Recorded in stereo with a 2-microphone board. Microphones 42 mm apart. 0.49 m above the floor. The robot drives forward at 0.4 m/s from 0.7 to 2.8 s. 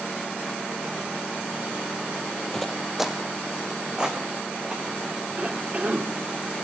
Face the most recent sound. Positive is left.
turn(degrees=-35)  # may be behind; listen again after turning